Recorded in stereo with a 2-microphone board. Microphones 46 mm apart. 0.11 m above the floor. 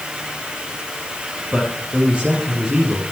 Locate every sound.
1.5 s a man speaking: 25° right (ahead or behind), 3.5 m